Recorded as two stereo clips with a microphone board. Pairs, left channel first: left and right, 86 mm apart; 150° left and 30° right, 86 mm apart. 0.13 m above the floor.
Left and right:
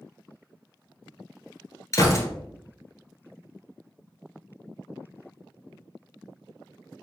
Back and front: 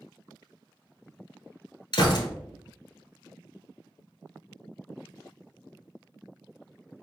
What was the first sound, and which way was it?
A gunshot, 135° left.